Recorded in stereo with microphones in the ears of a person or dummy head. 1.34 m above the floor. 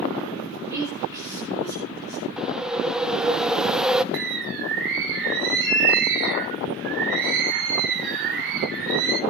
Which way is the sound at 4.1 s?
60° right (ahead or behind).